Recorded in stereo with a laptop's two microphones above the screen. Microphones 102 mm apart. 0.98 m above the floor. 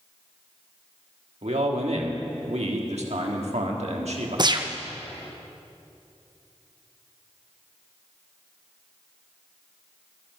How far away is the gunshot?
About 0.6 m.